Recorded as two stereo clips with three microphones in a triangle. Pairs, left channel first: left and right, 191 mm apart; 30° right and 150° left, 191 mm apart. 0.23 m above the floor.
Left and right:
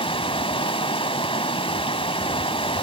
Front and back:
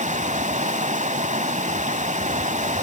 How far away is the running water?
About 0.9 m.